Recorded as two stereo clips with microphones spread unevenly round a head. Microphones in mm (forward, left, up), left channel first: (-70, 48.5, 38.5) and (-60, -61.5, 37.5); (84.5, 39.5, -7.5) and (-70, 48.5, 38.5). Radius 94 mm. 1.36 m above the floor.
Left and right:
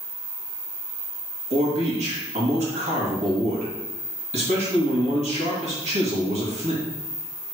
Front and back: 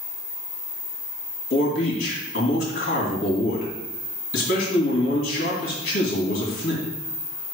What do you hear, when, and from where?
1.5 s a man speaking: 45° right, 2 m